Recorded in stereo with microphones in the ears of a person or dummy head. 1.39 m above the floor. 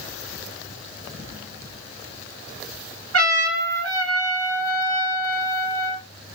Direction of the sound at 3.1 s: 65° right (ahead or behind).